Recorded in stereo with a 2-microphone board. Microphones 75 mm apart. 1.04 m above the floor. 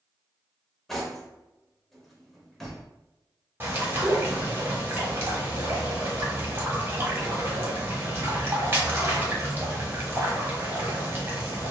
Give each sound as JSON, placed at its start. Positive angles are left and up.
{"t": 0.9, "sound": "cutlery clinking", "side_deg": 0, "distance_m": 0.6}
{"t": 3.6, "sound": "a bird", "side_deg": -30, "distance_m": 0.9}